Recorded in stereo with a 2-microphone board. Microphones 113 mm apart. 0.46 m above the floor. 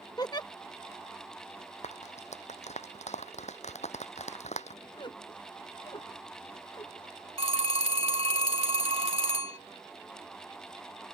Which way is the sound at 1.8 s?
80° left.